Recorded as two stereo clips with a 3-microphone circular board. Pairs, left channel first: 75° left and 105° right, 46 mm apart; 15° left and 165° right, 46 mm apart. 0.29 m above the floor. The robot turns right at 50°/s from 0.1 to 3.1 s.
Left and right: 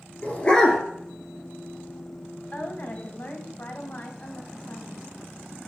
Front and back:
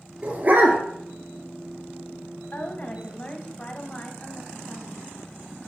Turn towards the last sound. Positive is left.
turn(degrees=75)